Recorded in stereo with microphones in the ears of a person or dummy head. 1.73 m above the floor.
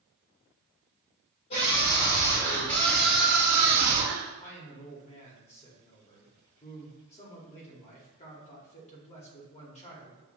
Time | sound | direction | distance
1.5 | a scream | 50° left (ahead or behind) | 1.5 m
4.4 | a man speaking | 30° left (ahead or behind) | 1.0 m